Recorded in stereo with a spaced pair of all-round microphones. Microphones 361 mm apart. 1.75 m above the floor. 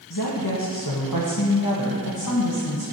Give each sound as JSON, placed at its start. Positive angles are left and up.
{"t": 0.1, "sound": "a woman speaking", "side_deg": 65, "distance_m": 1.6}